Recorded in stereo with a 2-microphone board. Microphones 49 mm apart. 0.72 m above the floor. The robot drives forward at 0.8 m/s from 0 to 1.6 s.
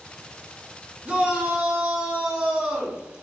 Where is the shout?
20° right (ahead or behind), 0.6 m; by 3.0 s 15° right (ahead or behind), 0.9 m.